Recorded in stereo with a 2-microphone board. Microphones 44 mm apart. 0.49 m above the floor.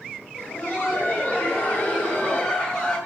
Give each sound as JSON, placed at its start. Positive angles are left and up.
{"t": 0.3, "sound": "laughter", "side_deg": 45, "distance_m": 1.7}